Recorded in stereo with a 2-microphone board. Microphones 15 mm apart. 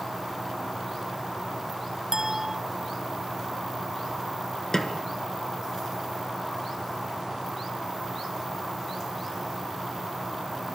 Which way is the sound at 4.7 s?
35° left (ahead or behind).